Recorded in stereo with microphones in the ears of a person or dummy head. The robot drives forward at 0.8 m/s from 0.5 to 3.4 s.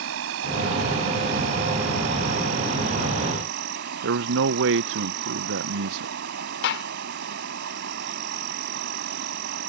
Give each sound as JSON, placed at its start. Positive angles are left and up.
{"t": 0.0, "sound": "an insect", "side_deg": -75}
{"t": 4.0, "sound": "a man speaking", "side_deg": -65}
{"t": 6.6, "sound": "a gunshot", "side_deg": 55}